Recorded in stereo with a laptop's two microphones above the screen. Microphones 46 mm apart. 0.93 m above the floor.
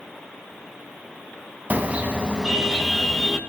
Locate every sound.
1.7 s a car horn: 40° right (ahead or behind), 3 m; by 3.4 s 5° left (ahead or behind), 3.5 m